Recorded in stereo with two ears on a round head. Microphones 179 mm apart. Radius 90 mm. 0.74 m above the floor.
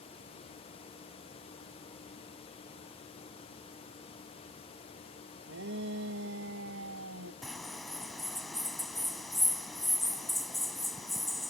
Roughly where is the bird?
Centre.